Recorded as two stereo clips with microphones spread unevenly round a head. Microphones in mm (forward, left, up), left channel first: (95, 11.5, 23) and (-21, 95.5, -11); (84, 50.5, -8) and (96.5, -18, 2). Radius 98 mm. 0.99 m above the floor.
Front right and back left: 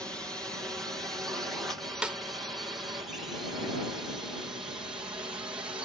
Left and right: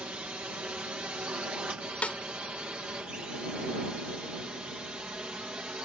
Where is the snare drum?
35° left.